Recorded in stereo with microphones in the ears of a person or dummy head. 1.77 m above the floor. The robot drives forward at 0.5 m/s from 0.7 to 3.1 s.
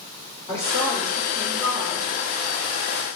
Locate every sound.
0.5 s a woman speaking: 15° left (ahead or behind), 2 m; by 2.1 s 25° left (ahead or behind), 1.4 m